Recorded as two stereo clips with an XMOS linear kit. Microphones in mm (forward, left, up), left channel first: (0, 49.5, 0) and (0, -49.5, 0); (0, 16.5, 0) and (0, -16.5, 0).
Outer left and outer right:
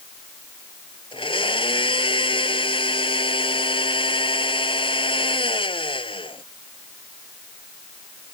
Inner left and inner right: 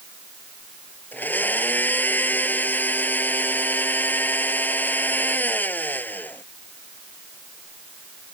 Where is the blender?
60° left (ahead or behind).